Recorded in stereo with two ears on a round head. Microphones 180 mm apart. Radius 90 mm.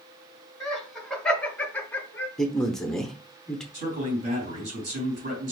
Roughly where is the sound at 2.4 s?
Centre.